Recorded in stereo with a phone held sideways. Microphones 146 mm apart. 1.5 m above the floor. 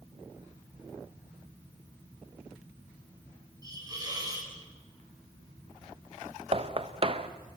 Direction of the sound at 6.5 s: 40° right (ahead or behind).